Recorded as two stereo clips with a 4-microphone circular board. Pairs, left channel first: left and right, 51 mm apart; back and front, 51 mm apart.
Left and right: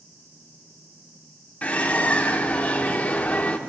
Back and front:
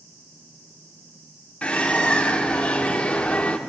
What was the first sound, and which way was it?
A bird, 130° left.